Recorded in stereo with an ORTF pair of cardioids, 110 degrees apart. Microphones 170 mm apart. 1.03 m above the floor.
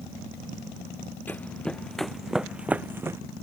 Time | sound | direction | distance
1.3 | running footsteps | 10° left | ?